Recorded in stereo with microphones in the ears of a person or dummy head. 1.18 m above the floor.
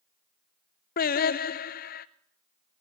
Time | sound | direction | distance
1.0 | singing | 40° left (ahead or behind) | 0.6 m